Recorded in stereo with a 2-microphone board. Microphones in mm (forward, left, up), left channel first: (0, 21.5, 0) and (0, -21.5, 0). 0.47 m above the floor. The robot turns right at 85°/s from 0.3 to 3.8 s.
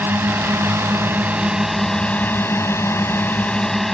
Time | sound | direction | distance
0.0 | a drone | 125° right | ?